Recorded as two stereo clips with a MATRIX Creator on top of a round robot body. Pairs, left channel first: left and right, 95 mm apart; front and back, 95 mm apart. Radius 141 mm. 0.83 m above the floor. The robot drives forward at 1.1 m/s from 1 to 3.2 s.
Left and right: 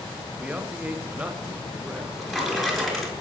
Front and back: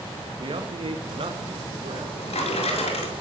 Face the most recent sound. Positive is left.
turn(degrees=0)